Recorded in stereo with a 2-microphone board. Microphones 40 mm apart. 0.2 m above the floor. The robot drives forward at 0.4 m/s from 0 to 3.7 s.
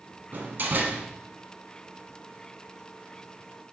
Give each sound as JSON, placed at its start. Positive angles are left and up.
{"t": 0.3, "sound": "a door slam", "side_deg": -50, "distance_m": 1.3}